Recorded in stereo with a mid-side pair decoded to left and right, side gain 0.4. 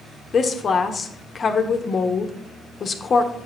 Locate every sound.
0.3 s a woman speaking: 50° left, 1.0 m